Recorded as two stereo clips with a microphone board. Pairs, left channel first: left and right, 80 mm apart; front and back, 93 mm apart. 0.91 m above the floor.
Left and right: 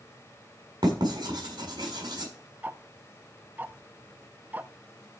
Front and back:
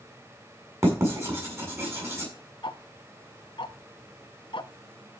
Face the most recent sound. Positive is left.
turn(degrees=-20)